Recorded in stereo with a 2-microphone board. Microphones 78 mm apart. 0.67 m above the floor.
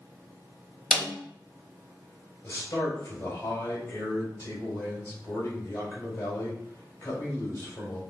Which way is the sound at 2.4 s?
35° left (ahead or behind).